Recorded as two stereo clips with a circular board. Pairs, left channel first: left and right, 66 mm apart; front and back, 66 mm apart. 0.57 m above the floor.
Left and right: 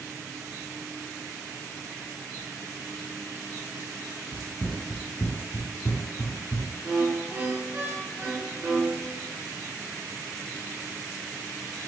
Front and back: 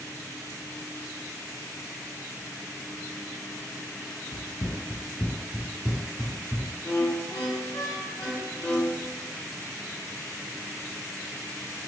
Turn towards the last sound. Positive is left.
turn(degrees=-40)